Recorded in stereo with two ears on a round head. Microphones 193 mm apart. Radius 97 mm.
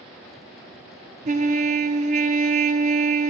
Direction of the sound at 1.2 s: 35° right (ahead or behind).